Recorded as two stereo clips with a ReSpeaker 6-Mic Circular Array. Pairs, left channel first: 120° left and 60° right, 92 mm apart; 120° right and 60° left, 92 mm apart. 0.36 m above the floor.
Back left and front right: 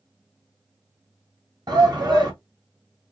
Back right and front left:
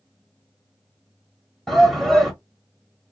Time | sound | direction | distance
1.7 | a shout | 35° right | 1.3 m